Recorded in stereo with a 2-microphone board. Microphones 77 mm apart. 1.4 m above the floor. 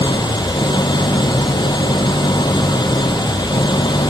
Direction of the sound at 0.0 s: 90° left.